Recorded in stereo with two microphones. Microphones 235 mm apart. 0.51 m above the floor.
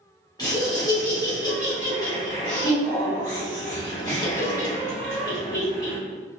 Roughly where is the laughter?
Centre.